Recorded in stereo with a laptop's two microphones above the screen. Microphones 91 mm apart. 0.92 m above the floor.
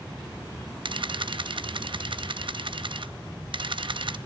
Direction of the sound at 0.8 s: 65° right (ahead or behind).